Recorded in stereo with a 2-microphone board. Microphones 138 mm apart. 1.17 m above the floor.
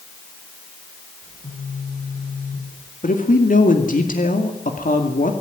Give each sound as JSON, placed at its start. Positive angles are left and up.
{"t": 1.2, "sound": "a phone buzzing", "side_deg": 70, "distance_m": 9.0}
{"t": 3.0, "sound": "a man speaking", "side_deg": 75, "distance_m": 2.5}